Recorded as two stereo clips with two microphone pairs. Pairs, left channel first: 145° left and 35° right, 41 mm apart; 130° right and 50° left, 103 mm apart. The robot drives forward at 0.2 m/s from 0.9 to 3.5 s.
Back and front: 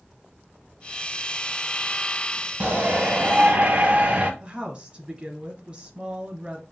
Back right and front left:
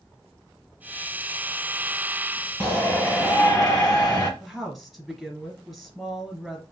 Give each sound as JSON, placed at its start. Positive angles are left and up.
{"t": 2.6, "sound": "a shout", "azimuth_deg": -60, "distance_m": 1.2}
{"t": 4.4, "sound": "a woman speaking", "azimuth_deg": -40, "distance_m": 1.2}